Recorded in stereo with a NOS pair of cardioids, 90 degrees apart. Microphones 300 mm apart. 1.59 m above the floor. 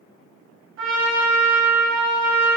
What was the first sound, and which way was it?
A trumpet, 45° right.